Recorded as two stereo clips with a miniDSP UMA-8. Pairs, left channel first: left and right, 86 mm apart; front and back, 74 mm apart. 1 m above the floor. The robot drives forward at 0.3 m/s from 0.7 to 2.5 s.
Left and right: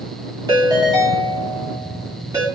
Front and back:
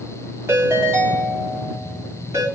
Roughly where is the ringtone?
Behind right.